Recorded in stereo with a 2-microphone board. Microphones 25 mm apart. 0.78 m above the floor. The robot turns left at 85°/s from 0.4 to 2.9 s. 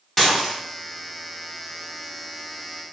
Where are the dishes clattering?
20° left (ahead or behind), 1.9 m; by 0.5 s 5° left (ahead or behind), 1.9 m.